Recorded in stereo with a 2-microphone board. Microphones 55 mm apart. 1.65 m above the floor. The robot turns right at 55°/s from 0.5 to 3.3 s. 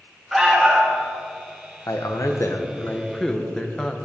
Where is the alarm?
5° right (ahead or behind), 1.6 m; by 1.0 s 30° right (ahead or behind), 1.6 m.